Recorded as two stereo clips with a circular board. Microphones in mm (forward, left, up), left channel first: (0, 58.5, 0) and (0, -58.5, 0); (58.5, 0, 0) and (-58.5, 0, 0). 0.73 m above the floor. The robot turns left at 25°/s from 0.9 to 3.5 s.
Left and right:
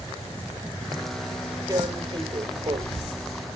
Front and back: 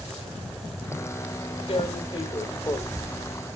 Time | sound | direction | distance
1.7 | tearing paper | 30° right | 1.9 m